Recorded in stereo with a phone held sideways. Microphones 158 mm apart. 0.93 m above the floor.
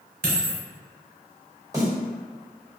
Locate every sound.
0.2 s a dropped coin: 70° right (ahead or behind), 1.1 m
1.7 s a snare drum: 20° right (ahead or behind), 1.3 m